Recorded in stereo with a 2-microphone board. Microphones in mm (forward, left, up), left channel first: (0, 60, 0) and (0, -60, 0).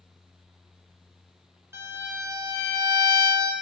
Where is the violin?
20° right (ahead or behind), 1.0 m.